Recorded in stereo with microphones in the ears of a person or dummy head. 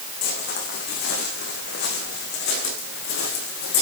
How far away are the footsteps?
About 5 m.